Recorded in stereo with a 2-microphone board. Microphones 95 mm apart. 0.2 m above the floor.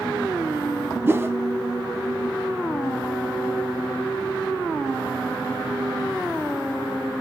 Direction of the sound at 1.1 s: 25° right (ahead or behind).